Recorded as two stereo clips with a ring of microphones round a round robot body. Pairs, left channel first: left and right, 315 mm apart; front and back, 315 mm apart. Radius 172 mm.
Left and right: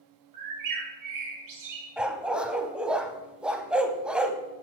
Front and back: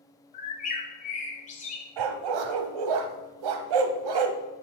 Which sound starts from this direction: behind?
A dog barking, at 2.0 s.